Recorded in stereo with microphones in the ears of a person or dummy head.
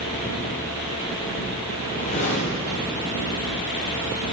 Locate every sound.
1.8 s a whoosh: 40° left (ahead or behind), 1.8 m